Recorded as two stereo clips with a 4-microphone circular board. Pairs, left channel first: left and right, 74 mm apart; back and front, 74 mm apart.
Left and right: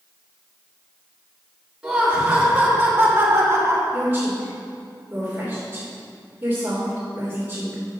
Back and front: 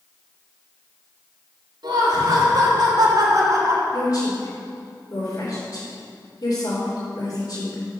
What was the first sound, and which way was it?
Laughter, 10° right.